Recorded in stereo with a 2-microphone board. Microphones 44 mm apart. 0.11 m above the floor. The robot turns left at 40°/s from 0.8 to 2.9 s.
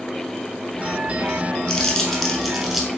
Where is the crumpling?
10° left (ahead or behind), 0.8 m; by 2.9 s 10° right (ahead or behind), 0.8 m.